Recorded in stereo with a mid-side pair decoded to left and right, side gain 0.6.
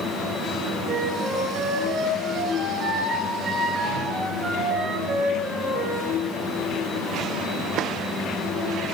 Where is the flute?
30° right, 6.5 m.